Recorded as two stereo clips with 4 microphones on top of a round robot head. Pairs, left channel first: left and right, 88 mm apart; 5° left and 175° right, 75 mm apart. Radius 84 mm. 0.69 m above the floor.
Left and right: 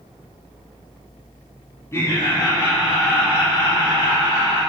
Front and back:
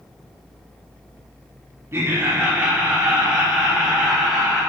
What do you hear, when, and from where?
1.9 s laughter: 145° left, 1.5 m; by 4.6 s 105° left, 3 m